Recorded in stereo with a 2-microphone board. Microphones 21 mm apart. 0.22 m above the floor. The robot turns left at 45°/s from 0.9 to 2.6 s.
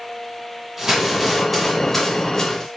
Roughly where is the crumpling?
Centre.